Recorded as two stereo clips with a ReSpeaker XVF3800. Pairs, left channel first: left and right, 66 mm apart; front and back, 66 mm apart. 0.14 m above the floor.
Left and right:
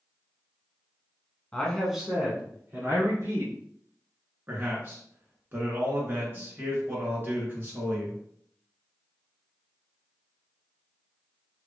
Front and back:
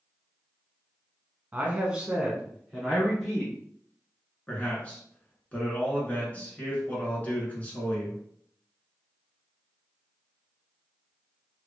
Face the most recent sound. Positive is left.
turn(degrees=-55)